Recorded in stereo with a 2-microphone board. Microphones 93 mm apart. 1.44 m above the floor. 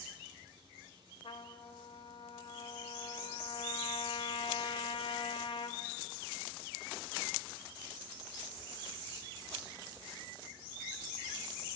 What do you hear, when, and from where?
1.2 s a trumpet: 70° left (ahead or behind), 1.3 m